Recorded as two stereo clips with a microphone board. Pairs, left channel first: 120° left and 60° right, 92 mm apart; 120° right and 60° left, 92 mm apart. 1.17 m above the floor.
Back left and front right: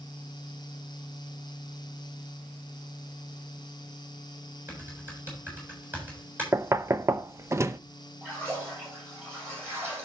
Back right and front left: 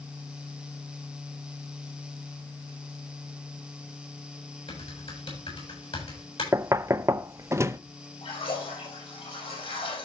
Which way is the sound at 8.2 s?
130° right.